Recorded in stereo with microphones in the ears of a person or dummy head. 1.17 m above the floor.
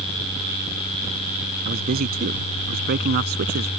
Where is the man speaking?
50° right (ahead or behind); by 3.7 s 55° right (ahead or behind).